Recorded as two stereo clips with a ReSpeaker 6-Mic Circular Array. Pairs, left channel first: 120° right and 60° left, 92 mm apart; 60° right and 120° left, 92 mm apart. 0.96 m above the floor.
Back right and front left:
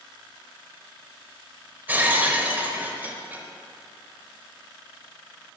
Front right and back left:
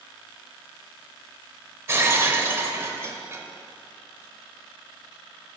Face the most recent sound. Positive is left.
turn(degrees=110)